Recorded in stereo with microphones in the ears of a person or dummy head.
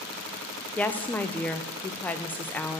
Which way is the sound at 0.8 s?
5° left (ahead or behind).